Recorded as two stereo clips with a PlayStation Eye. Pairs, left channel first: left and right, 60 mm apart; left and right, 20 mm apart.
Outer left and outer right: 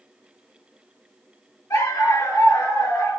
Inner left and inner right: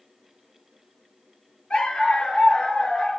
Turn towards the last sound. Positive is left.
turn(degrees=85)